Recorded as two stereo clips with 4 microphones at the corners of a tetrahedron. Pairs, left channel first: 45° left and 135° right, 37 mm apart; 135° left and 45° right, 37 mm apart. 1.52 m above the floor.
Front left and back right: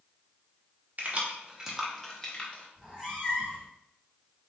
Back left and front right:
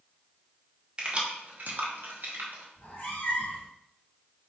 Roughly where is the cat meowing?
Behind left.